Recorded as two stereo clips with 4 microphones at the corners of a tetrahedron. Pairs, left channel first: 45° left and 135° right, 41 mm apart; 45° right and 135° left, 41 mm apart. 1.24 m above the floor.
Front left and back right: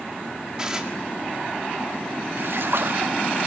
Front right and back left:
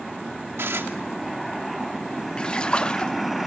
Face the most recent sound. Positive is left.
turn(degrees=-115)